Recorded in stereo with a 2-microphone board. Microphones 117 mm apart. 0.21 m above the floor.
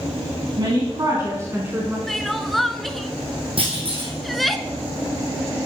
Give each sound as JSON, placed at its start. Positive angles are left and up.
{"t": 0.6, "sound": "a woman speaking", "side_deg": -45, "distance_m": 2.0}
{"t": 2.1, "sound": "crying", "side_deg": 0, "distance_m": 0.7}
{"t": 3.6, "sound": "a clunk", "side_deg": -55, "distance_m": 3.5}